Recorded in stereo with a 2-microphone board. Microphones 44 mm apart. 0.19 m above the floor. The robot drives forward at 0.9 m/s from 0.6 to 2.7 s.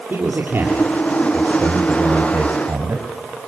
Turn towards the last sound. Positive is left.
turn(degrees=-70)  # may be behind; listen again after turning